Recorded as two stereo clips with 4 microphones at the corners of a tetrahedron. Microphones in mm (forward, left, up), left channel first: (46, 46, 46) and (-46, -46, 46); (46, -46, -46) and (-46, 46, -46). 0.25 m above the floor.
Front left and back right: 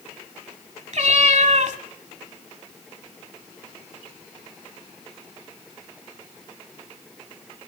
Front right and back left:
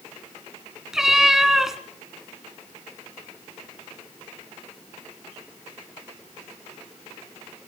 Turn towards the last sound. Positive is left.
turn(degrees=-140)